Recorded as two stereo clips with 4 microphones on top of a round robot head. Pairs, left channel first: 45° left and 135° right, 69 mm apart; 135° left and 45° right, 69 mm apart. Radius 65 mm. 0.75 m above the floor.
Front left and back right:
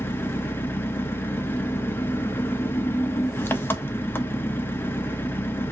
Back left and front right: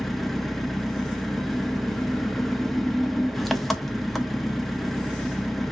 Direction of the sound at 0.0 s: 50° left.